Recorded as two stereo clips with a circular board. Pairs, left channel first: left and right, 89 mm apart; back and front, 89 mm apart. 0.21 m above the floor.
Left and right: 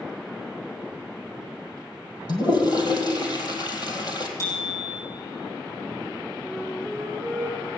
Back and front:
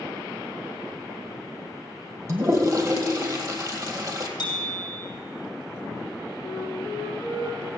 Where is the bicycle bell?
140° left, 5.5 m.